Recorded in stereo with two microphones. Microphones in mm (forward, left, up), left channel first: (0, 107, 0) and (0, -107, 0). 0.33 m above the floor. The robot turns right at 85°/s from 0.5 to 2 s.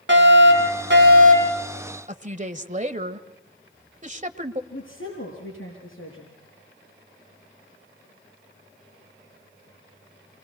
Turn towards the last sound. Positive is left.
turn(degrees=75)  # may be behind; listen again after turning